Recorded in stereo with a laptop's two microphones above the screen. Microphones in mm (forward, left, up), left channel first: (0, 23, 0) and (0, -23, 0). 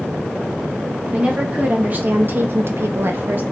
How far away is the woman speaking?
About 1.1 m.